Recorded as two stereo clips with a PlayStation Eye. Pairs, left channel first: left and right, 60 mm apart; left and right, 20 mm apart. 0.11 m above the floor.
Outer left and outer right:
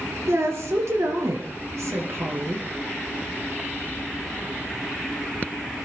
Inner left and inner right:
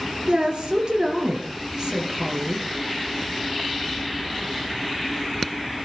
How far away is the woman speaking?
About 2.5 m.